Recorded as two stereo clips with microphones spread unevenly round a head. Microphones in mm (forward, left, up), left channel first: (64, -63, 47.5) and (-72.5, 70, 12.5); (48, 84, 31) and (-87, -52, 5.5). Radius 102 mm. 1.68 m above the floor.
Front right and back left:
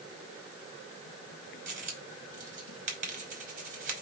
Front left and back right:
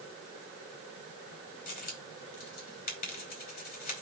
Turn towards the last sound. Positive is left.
turn(degrees=80)